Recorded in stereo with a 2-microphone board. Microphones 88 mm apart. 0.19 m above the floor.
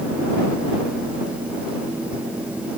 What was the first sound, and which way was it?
Only background noise.